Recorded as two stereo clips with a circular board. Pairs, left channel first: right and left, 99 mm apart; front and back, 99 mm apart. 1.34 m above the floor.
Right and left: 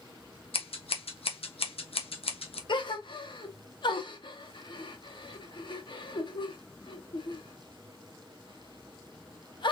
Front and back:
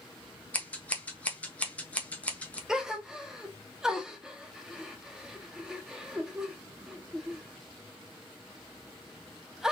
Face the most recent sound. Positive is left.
turn(degrees=-100)